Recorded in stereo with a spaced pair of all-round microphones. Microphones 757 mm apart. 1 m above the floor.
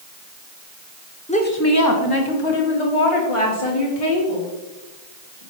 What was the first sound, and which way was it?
A woman speaking, 10° left (ahead or behind).